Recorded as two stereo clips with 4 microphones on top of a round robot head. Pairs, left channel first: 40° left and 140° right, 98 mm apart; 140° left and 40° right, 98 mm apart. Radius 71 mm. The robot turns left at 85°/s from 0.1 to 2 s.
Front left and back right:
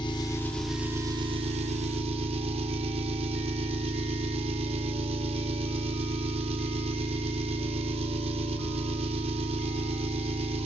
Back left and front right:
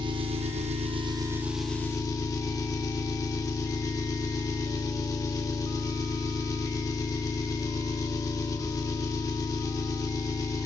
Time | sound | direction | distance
0.0 | an engine running | straight ahead | 1.9 m